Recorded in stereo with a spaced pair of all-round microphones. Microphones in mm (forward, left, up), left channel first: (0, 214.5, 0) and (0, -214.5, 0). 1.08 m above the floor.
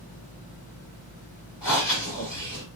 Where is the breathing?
65° left (ahead or behind), 3 m.